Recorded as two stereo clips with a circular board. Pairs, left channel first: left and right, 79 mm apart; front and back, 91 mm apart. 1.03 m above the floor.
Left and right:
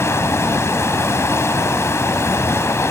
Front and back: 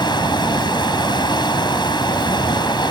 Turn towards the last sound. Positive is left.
turn(degrees=35)